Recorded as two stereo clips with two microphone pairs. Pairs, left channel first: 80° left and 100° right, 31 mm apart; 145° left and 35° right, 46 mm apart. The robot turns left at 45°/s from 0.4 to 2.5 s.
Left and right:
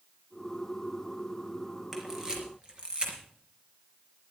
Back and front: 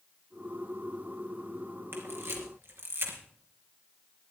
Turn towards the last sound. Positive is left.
turn(degrees=-45)